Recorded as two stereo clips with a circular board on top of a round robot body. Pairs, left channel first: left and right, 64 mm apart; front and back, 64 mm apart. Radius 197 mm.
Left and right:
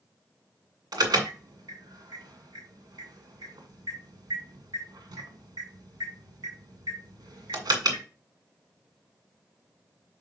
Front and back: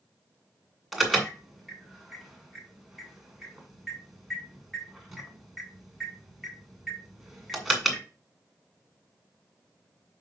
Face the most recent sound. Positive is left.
turn(degrees=-90)